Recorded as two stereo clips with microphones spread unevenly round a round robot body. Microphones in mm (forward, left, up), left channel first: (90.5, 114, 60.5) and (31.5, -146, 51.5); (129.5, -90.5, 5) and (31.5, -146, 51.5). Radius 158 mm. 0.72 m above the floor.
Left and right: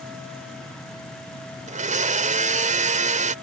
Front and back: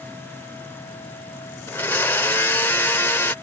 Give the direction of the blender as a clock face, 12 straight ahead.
1 o'clock.